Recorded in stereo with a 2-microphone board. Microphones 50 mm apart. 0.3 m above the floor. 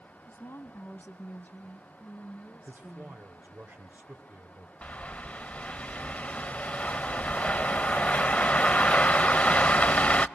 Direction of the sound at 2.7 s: 45° right (ahead or behind).